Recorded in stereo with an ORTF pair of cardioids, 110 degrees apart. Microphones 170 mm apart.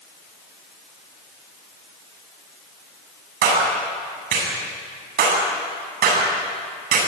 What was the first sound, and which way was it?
A clap, 65° right.